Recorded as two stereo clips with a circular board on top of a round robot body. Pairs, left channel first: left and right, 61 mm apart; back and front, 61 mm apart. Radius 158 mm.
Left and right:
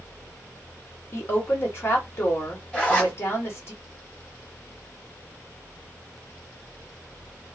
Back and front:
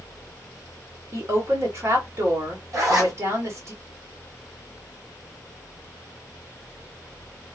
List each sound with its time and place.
1.1 s a woman speaking: 40° left, 2.5 m
2.7 s a zipper: 20° left, 2.5 m